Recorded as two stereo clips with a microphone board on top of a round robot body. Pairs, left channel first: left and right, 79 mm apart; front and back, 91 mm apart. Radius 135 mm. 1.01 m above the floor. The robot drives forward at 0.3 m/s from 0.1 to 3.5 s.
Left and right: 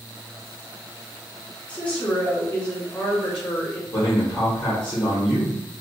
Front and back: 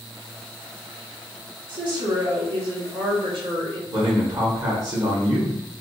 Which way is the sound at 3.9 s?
155° left.